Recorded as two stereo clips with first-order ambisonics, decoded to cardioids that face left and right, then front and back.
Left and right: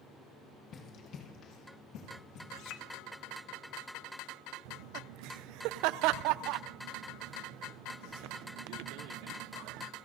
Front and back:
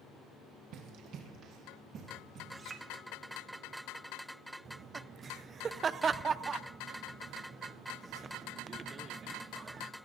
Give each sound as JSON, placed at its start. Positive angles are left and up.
{"t": 0.7, "sound": "running footsteps", "azimuth_deg": 145, "distance_m": 3.0}
{"t": 2.5, "sound": "a clink", "azimuth_deg": 110, "distance_m": 1.8}
{"t": 4.7, "sound": "laughter", "azimuth_deg": -110, "distance_m": 0.5}